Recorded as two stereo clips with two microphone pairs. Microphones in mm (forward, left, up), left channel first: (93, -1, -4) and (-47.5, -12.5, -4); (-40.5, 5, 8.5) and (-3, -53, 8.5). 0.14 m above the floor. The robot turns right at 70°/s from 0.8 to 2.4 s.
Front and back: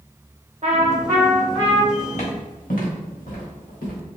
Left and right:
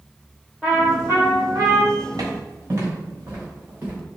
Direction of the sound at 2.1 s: 35° right.